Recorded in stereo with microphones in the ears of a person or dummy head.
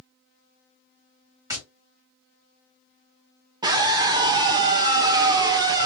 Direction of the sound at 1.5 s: 15° right (ahead or behind).